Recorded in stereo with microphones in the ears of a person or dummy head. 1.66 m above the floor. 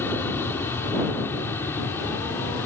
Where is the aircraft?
5° left (ahead or behind).